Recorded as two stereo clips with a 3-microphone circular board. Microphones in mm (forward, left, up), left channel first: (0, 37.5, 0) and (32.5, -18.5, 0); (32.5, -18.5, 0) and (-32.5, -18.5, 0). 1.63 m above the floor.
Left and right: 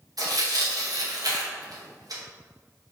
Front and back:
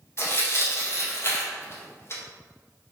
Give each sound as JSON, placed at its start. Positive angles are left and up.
{"t": 0.2, "sound": "tearing paper", "azimuth_deg": -45, "distance_m": 1.5}